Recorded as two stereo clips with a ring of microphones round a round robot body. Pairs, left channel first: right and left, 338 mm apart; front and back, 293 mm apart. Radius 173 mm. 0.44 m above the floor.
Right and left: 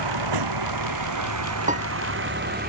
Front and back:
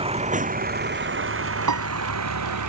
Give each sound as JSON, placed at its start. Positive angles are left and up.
{"t": 0.0, "sound": "a vehicle", "azimuth_deg": 110}
{"t": 1.7, "sound": "a piano", "azimuth_deg": 160}